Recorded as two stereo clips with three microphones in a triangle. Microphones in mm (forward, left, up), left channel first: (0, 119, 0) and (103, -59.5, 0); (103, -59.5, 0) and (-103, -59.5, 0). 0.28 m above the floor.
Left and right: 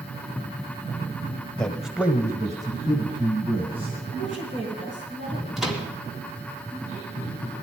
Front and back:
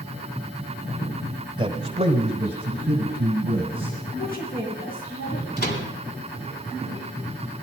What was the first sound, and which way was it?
A man speaking, 160° right.